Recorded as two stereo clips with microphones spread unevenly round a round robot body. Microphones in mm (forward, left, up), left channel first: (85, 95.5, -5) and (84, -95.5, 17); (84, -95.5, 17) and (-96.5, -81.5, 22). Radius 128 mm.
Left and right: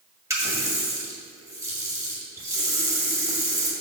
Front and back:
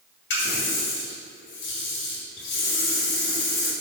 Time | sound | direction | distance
0.3 | a running tap | 15° right | 1.8 m